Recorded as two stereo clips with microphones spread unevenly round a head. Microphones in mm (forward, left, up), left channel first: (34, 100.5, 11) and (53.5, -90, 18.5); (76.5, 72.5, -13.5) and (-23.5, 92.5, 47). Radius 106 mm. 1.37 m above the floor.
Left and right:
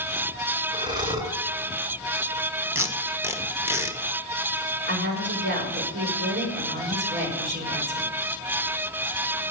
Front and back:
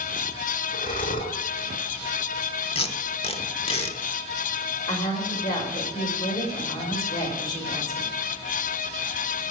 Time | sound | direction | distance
0.7 | breathing | 20° right | 2.5 m
2.8 | tape being pulled | 5° right | 1.5 m
4.9 | a woman speaking | 55° right | 6 m